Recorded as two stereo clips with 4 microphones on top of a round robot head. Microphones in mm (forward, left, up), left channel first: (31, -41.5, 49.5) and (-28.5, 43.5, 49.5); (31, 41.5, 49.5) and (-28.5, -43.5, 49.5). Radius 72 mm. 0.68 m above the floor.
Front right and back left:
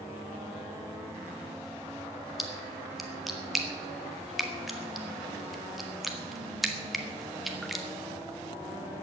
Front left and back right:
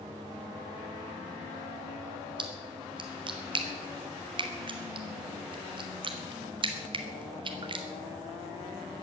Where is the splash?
145° right, 1.8 m.